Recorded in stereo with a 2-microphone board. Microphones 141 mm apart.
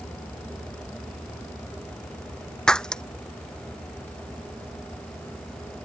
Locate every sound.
2.7 s breaking glass: 5° left (ahead or behind)